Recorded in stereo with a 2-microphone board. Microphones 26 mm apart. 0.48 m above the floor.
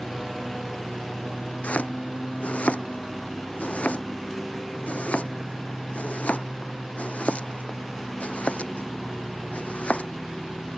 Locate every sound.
0.0 s a lawn mower: 5° left (ahead or behind)
1.6 s chopping: 65° left (ahead or behind)